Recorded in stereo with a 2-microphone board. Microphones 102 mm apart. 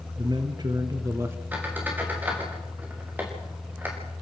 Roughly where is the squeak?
Centre.